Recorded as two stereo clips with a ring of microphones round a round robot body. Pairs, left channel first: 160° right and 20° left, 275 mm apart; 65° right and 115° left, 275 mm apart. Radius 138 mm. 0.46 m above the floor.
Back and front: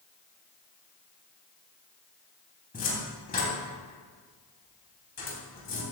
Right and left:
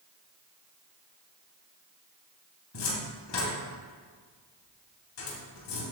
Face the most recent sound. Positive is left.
turn(degrees=-95)